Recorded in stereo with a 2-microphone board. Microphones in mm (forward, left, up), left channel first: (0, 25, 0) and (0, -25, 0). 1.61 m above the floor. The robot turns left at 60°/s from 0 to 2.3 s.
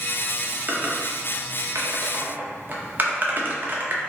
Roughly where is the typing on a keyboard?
Right.